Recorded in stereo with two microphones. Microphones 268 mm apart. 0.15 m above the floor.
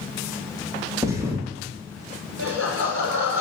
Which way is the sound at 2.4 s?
55° right (ahead or behind).